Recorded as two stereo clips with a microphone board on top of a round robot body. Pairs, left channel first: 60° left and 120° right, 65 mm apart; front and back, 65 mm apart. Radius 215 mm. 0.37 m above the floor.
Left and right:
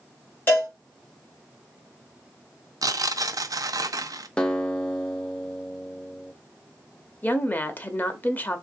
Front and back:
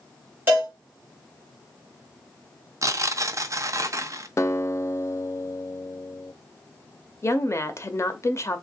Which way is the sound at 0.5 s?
120° left.